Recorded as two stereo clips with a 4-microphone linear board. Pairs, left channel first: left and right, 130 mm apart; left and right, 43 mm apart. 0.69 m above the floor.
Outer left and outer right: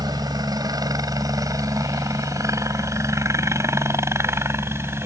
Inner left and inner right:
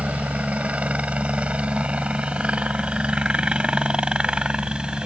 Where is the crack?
I don't hear a crack.